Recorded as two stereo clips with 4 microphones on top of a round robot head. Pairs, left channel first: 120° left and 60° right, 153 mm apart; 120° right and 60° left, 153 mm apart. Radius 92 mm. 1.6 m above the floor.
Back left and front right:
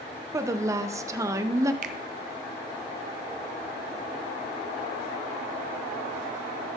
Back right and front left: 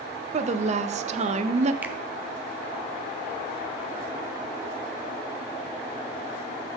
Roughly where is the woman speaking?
Ahead.